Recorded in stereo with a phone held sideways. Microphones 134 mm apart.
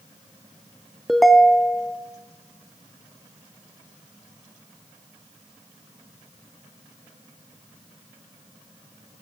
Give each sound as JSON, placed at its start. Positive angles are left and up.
{"t": 1.1, "sound": "a ringtone", "side_deg": 0, "distance_m": 0.8}